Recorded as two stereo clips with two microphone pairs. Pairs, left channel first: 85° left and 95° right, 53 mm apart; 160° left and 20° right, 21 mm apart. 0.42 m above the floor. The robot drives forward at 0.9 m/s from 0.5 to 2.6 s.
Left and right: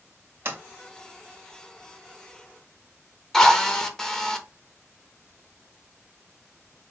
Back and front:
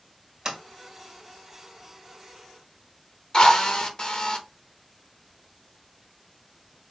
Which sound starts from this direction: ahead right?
A sliding door, at 0.5 s.